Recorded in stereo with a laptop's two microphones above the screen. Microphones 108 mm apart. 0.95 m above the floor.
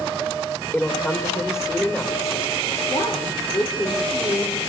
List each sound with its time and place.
0.7 s a woman speaking: 25° left (ahead or behind), 3 m
2.9 s a woman speaking: 45° left (ahead or behind), 3.5 m